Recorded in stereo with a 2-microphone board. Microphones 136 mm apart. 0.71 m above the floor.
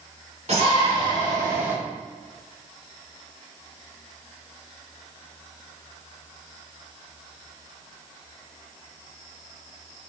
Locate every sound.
0.5 s a shout: 50° right (ahead or behind), 3 m; by 1.8 s 15° right (ahead or behind), 2.5 m